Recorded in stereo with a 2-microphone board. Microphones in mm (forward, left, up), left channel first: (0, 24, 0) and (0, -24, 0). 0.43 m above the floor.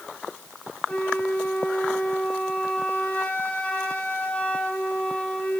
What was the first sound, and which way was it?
A flute, 35° left (ahead or behind).